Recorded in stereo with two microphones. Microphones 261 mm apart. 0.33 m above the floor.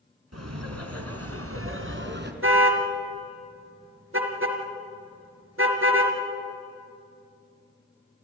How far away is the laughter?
About 3 m.